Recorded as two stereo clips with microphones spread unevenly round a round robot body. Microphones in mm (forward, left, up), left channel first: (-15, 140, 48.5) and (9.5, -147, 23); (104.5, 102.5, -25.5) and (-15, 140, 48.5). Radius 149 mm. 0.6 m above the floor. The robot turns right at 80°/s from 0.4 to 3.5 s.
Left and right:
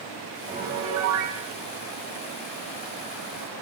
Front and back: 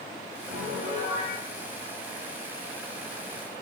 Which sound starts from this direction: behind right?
A piano, at 0.5 s.